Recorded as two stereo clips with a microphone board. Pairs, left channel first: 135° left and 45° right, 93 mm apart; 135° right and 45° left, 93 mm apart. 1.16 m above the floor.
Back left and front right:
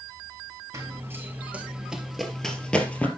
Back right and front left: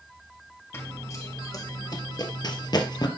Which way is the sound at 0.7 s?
85° right.